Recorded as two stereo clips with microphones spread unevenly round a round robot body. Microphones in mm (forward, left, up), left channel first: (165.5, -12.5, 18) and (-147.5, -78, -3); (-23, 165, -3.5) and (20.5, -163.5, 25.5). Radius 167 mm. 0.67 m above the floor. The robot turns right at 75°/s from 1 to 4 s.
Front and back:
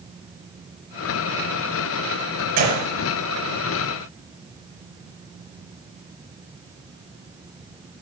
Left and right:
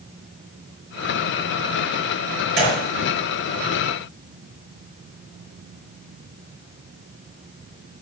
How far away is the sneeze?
I don't hear a sneeze.